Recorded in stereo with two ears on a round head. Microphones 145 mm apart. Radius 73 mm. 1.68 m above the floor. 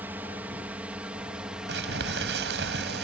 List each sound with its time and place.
0.0 s a drone: 10° right (ahead or behind); by 3.0 s centre (ahead or behind)
1.7 s crumpling: 80° right